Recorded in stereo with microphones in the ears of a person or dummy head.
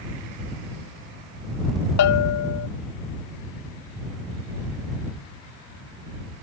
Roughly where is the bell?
Left.